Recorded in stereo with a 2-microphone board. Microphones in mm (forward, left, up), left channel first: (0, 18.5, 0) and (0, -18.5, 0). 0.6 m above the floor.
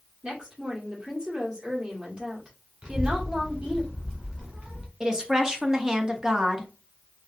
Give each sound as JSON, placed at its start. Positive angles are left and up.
{"t": 0.2, "sound": "a woman speaking", "side_deg": -30, "distance_m": 1.4}
{"t": 2.8, "sound": "a child speaking", "side_deg": -30, "distance_m": 1.4}
{"t": 5.0, "sound": "a woman speaking", "side_deg": -15, "distance_m": 0.6}